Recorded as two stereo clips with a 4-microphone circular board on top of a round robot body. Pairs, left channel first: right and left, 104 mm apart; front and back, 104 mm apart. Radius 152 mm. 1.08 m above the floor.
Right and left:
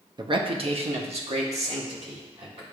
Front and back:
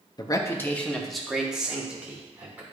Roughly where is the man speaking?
Ahead left.